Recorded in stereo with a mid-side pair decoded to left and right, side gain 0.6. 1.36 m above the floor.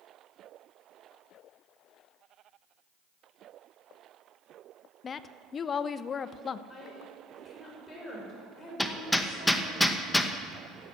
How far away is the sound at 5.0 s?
About 0.6 m.